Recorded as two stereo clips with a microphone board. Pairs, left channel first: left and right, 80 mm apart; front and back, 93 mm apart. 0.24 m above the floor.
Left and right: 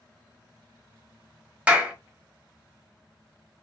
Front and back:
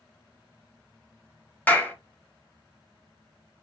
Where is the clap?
40° right, 0.8 m.